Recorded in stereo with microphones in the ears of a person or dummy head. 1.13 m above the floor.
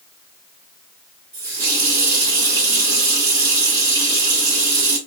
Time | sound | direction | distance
1.3 | a running tap | 15° right (ahead or behind) | 1.1 m